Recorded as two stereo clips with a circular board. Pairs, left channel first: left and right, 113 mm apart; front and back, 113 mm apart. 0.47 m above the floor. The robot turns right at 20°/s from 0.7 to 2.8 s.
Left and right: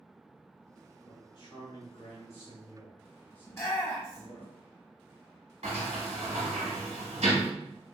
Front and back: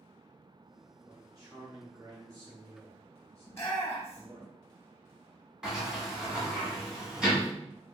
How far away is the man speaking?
About 1.3 m.